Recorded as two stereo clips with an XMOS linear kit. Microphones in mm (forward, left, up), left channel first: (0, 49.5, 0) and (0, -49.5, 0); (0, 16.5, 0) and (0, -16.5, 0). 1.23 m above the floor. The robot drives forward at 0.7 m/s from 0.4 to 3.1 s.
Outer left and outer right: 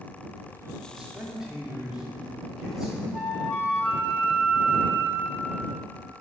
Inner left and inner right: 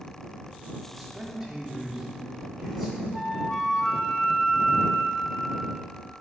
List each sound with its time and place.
0.9 s a man speaking: 5° right (ahead or behind), 2.5 m
3.1 s a flute: 15° left (ahead or behind), 1.8 m